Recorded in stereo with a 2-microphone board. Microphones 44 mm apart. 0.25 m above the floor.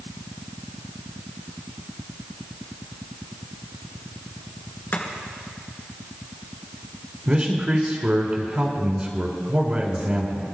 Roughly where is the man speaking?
Right.